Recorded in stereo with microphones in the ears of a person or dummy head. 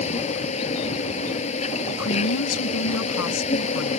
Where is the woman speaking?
75° left (ahead or behind).